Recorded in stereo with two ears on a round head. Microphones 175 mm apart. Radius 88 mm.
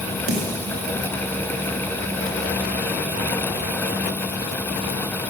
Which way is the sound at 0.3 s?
40° right (ahead or behind).